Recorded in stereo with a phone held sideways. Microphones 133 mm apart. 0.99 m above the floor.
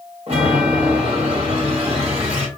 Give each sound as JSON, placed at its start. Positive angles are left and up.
{"t": 0.3, "sound": "a chime", "side_deg": -45, "distance_m": 1.5}